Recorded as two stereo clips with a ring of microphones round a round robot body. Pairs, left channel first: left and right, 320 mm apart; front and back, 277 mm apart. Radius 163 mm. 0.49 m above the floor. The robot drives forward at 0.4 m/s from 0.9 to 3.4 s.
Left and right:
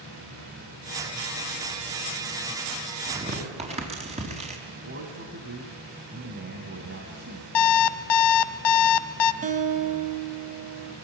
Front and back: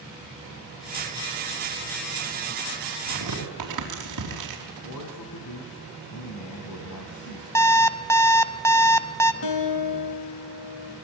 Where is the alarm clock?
80° left, 1.1 m.